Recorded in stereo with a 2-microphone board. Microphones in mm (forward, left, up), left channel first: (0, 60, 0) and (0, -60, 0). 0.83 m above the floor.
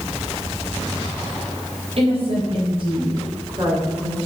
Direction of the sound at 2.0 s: 55° right (ahead or behind).